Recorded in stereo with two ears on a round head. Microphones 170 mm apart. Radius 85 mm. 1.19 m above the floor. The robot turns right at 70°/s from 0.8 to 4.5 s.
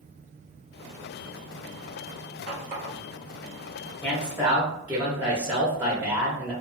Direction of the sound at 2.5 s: 60° right (ahead or behind).